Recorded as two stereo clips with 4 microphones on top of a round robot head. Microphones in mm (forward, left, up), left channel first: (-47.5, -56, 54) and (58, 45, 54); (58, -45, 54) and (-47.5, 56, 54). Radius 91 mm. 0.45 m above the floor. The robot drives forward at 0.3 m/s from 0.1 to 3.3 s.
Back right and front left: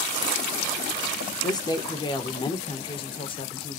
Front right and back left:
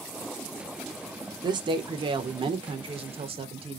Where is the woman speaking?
175° left, 1.3 m.